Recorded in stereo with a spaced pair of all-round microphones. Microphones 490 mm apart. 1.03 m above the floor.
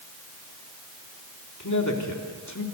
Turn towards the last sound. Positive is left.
turn(degrees=35)  # may be behind; listen again after turning